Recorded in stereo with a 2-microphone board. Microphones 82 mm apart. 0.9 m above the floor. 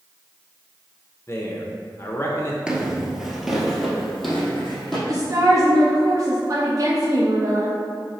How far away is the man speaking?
About 0.6 m.